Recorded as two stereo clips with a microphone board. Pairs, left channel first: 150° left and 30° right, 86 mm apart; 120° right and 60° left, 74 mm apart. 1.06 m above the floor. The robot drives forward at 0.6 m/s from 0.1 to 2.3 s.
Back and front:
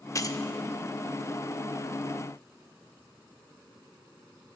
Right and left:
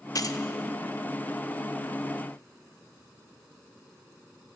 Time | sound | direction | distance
0.1 | keys jangling | 160° right | 0.5 m